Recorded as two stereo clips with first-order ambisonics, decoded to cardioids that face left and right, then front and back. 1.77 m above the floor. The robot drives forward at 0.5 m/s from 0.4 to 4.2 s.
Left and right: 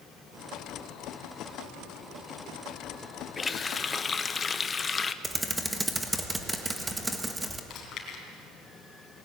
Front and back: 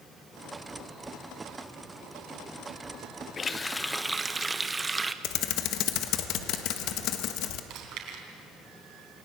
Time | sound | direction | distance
3.4 | a running tap | 35° left | 0.8 m
5.2 | typing on a keyboard | 10° right | 1.5 m
7.7 | chewing | 140° left | 4 m